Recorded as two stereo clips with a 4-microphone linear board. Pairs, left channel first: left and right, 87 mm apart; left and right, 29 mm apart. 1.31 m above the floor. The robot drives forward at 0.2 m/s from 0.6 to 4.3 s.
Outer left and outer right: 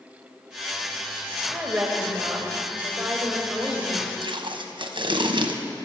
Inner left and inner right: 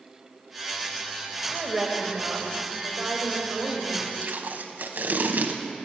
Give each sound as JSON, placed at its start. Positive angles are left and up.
{"t": 1.5, "sound": "a woman speaking", "side_deg": -15, "distance_m": 0.9}
{"t": 4.2, "sound": "tape being pulled", "side_deg": -70, "distance_m": 0.7}